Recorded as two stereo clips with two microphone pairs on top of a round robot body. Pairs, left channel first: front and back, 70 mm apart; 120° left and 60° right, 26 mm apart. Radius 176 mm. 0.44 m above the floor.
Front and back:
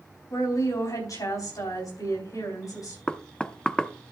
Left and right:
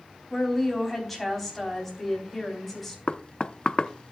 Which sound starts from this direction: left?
Knocking, at 3.1 s.